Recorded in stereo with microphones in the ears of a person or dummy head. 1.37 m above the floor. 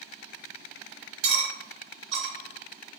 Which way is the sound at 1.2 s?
50° right (ahead or behind).